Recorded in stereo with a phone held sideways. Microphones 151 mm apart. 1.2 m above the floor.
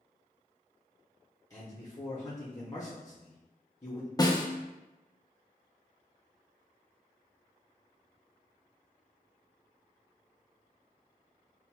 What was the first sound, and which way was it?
A man speaking, 25° left (ahead or behind).